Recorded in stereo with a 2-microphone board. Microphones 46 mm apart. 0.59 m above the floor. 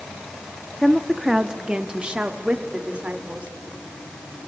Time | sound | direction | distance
0.8 | a woman speaking | 5° left (ahead or behind) | 1.0 m